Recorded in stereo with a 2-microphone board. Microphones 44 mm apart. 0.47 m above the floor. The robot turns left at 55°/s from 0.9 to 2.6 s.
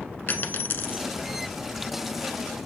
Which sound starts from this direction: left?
A dropped coin, at 0.3 s.